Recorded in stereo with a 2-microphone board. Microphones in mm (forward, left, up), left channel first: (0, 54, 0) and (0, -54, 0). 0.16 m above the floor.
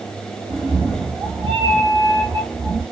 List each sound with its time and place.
0.5 s a cat meowing: 60° right (ahead or behind), 1.9 m